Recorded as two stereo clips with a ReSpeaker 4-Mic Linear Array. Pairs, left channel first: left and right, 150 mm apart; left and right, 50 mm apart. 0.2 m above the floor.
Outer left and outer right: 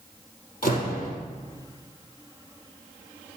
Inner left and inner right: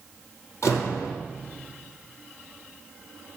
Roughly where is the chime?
No chime in this recording.